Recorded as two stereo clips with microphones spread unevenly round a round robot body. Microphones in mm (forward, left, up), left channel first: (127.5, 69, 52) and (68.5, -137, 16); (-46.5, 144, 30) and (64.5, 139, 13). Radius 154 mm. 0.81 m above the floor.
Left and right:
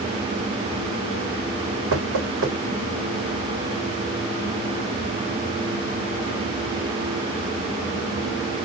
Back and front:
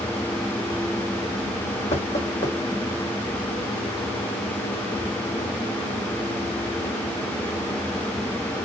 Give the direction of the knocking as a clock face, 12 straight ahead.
4 o'clock.